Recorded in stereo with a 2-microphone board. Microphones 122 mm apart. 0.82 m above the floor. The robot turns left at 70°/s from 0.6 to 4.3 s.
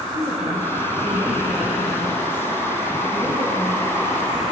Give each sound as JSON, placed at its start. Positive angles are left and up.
{"t": 0.1, "sound": "a woman speaking", "azimuth_deg": -120, "distance_m": 5.5}